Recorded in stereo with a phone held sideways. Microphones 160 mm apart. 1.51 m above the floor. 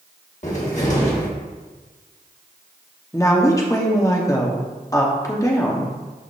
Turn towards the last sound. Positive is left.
turn(degrees=20)  # may be behind; listen again after turning